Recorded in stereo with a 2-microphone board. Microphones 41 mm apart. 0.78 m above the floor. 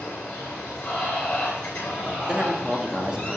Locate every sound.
0.0 s running water: 30° left (ahead or behind), 4 m
2.3 s a man speaking: 20° right (ahead or behind), 1.1 m